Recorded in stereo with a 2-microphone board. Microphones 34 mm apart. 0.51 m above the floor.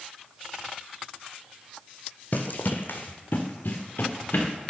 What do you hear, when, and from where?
2.3 s running footsteps: 60° left (ahead or behind), 1.0 m; by 4.5 s 55° left (ahead or behind), 3 m